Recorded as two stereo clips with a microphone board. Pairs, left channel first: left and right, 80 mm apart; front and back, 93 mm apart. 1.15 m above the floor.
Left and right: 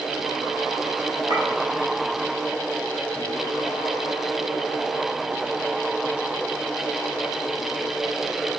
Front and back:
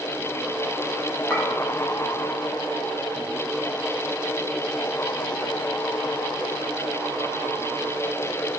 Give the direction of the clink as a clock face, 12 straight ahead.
3 o'clock.